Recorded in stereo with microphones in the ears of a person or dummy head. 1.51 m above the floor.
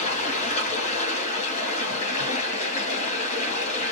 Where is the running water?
45° left (ahead or behind), 2.0 m.